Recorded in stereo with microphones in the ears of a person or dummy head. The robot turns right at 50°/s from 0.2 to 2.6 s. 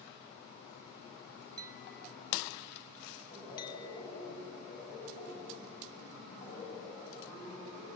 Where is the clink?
15° right (ahead or behind), 1.1 m; by 4.1 s 35° left (ahead or behind), 1.1 m.